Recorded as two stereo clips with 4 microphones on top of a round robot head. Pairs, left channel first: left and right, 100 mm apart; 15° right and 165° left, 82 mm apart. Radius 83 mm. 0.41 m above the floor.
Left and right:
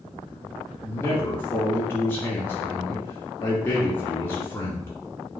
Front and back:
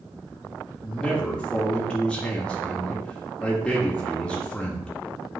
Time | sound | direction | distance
0.8 | a man speaking | 55° left | 1.0 m